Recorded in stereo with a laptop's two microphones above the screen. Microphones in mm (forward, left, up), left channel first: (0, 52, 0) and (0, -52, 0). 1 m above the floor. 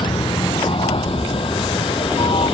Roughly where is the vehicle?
Left.